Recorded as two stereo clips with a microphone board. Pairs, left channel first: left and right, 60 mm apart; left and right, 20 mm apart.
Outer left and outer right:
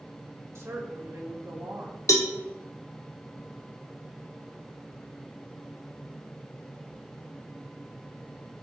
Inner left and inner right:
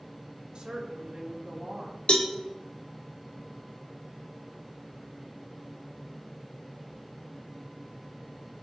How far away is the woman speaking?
About 1.6 m.